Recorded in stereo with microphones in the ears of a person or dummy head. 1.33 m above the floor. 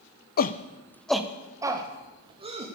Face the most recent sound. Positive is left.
turn(degrees=-30)  # may be behind; listen again after turning